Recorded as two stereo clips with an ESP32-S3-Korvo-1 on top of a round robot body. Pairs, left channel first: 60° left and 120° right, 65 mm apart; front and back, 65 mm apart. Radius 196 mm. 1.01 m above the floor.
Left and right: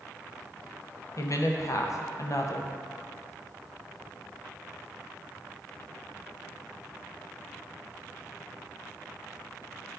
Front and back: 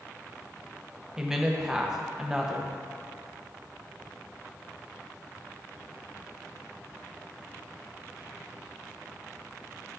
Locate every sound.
1.2 s a woman speaking: 100° left, 0.9 m